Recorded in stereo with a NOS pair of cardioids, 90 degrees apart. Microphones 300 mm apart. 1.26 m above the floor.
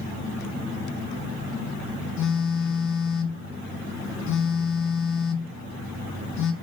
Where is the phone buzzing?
65° left, 1.6 m.